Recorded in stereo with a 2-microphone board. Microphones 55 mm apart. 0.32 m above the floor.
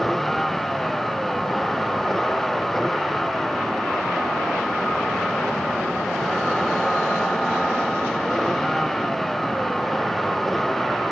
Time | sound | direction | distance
0.0 | a vehicle | 5° left (ahead or behind) | ?